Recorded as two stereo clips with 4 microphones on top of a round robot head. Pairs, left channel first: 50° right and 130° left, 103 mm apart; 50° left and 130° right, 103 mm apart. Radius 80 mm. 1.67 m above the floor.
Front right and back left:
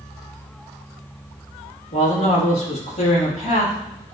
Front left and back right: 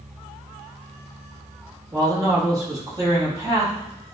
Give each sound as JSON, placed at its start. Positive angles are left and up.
{"t": 1.9, "sound": "a man speaking", "azimuth_deg": -75, "distance_m": 4.0}